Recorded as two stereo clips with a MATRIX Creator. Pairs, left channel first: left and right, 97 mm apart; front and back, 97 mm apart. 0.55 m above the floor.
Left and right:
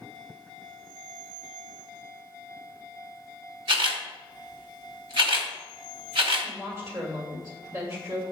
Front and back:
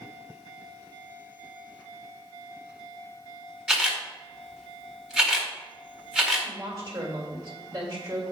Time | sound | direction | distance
3.7 | a camera shutter | 100° right | 1.4 m
6.4 | a woman speaking | 130° right | 1.9 m